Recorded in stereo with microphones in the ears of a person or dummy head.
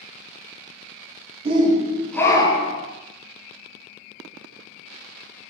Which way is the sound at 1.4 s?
35° right (ahead or behind).